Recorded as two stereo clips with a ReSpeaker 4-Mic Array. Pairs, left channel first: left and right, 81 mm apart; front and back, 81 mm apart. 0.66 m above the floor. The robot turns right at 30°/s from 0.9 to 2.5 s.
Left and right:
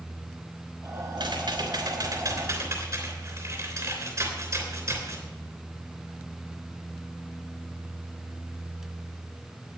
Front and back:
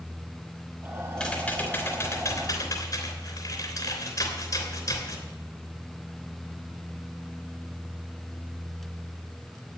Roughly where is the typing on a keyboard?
Right.